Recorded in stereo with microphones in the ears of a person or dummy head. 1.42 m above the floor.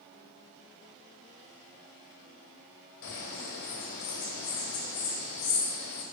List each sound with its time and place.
3.0 s a bird: 70° left (ahead or behind), 2.5 m